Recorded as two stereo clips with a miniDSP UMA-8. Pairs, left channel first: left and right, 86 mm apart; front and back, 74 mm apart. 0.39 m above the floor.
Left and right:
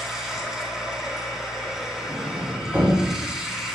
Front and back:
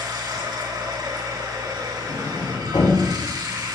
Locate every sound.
0.0 s running water: 175° right, 3 m
2.1 s a sliding door: 25° right, 6 m